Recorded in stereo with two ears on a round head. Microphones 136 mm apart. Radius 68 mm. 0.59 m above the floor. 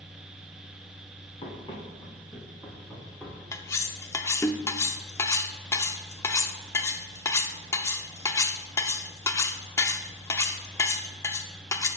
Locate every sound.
1.4 s running footsteps: 35° left (ahead or behind), 3 m; by 3.4 s 5° left (ahead or behind), 3 m
3.5 s cutlery clinking: 20° left (ahead or behind), 0.5 m